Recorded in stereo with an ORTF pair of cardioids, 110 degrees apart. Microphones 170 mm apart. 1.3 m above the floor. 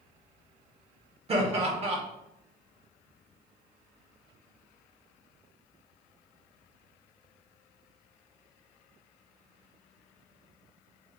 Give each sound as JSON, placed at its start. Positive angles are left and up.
{"t": 1.3, "sound": "laughter", "azimuth_deg": -35, "distance_m": 1.7}